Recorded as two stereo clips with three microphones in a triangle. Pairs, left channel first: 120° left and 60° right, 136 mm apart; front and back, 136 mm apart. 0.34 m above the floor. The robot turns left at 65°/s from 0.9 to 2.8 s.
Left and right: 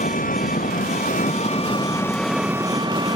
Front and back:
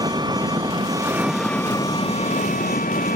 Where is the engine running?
120° left; by 3.2 s straight ahead.